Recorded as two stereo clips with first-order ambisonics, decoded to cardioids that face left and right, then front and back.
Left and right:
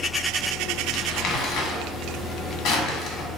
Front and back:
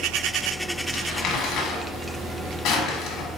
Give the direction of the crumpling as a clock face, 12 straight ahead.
11 o'clock.